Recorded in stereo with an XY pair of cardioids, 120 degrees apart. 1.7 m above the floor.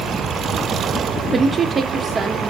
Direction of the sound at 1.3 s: 25° right.